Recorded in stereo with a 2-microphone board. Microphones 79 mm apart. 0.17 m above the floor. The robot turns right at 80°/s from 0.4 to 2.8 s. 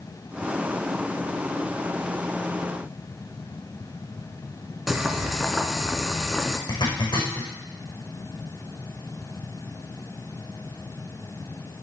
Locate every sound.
4.9 s boiling: 5° right (ahead or behind), 1.2 m
6.7 s a zipper: 70° left (ahead or behind), 5 m